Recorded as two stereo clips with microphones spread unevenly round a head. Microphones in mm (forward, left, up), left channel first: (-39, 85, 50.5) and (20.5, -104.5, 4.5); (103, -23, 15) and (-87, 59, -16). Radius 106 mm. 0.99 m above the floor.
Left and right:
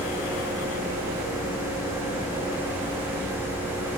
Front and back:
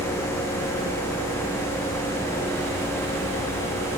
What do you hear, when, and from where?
Only background noise.